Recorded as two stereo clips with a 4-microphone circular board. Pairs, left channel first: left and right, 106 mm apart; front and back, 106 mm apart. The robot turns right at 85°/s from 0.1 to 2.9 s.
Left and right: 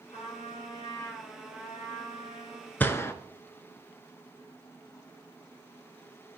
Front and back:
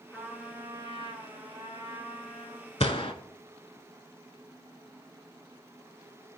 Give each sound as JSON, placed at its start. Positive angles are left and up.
{"t": 0.1, "sound": "a trumpet", "azimuth_deg": 75, "distance_m": 2.5}
{"t": 2.8, "sound": "a gunshot", "azimuth_deg": 20, "distance_m": 0.6}